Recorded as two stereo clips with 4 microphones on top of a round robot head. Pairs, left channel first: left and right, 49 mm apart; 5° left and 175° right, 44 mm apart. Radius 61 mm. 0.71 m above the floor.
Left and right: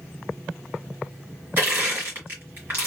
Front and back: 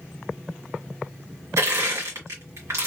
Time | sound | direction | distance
1.6 | crushing | 145° right | 1.8 m